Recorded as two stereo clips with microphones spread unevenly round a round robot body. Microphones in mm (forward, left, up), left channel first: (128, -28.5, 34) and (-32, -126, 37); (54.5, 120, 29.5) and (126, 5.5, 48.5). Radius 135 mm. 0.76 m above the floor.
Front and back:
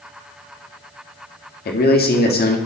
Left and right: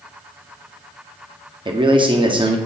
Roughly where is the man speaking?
Ahead.